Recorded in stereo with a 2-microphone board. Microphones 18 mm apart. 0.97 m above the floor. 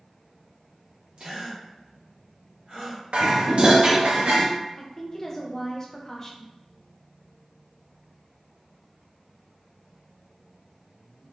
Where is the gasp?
60° right (ahead or behind), 1.5 m.